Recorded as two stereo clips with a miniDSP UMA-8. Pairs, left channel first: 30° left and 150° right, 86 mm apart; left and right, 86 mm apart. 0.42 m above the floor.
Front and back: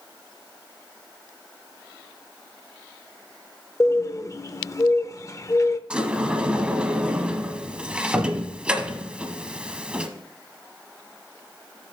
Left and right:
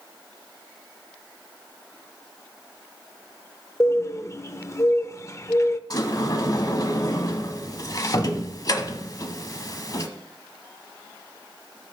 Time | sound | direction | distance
3.8 | a bird | 55° left | 0.5 m
5.9 | a sliding door | 130° left | 0.9 m